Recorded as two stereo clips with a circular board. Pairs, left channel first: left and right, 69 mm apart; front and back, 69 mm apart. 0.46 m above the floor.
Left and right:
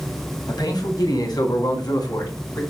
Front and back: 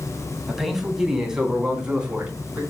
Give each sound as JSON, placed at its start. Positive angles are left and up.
{"t": 0.5, "sound": "a man speaking", "azimuth_deg": 95, "distance_m": 3.0}